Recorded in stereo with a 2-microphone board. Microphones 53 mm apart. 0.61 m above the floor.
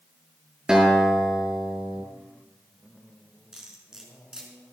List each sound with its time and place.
0.7 s a guitar: 10° right (ahead or behind), 5.5 m
3.5 s cutlery clinking: 10° right (ahead or behind), 4.5 m